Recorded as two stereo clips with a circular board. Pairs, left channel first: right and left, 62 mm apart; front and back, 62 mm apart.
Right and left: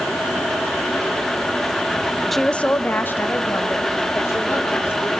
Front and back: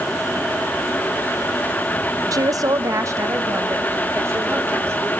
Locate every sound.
2.3 s a woman speaking: straight behind, 0.6 m; by 5.1 s 135° right, 4 m